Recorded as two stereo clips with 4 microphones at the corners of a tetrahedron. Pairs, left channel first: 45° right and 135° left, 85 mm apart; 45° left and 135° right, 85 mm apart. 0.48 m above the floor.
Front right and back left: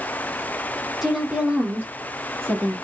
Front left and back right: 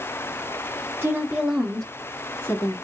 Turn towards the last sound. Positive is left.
turn(degrees=90)